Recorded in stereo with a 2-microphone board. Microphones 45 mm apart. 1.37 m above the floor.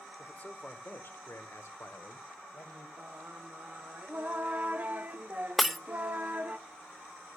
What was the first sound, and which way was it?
A man speaking, 25° left (ahead or behind).